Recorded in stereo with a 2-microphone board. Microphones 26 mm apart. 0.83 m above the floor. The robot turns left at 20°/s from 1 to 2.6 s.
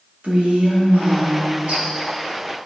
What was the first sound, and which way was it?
A woman speaking, 65° right (ahead or behind).